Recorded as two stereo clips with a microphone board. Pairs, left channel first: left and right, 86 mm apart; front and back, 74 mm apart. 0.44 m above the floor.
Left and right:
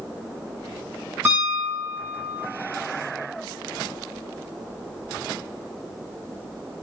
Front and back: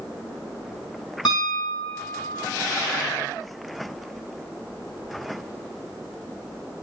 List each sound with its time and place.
1.2 s a piano: 25° right, 4.5 m